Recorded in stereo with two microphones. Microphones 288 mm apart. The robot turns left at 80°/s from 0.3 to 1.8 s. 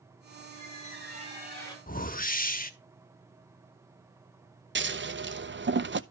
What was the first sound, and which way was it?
A squeak, 100° right.